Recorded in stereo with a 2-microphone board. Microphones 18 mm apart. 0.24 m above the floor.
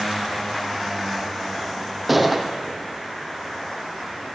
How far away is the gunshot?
About 1.6 m.